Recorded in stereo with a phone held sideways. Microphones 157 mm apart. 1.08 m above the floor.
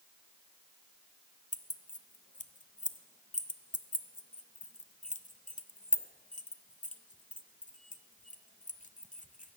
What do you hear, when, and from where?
1.5 s keys jangling: 55° left (ahead or behind), 0.5 m